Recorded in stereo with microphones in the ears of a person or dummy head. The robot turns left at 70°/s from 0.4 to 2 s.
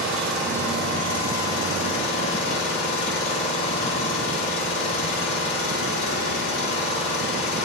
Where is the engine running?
Straight behind, 3 m; by 7.7 s 65° left, 3 m.